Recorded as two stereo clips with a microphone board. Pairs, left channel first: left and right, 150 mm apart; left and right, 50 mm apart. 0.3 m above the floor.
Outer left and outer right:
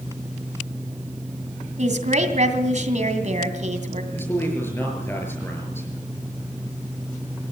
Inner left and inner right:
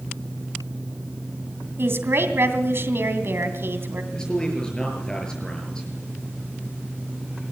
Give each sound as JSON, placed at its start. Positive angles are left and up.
{"t": 1.8, "sound": "a woman speaking", "side_deg": -60, "distance_m": 2.5}
{"t": 4.1, "sound": "a man speaking", "side_deg": 15, "distance_m": 6.0}